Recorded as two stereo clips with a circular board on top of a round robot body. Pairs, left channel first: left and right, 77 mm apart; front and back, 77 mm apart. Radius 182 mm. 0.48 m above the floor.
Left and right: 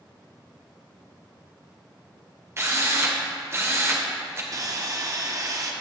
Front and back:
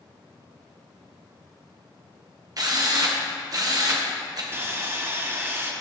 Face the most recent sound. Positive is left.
turn(degrees=-125)